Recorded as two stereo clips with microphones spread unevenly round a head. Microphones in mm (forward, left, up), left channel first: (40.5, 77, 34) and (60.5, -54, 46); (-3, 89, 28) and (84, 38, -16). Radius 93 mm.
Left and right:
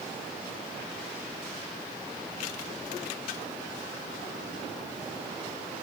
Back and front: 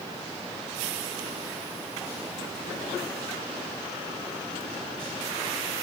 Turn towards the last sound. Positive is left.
No sound to turn to.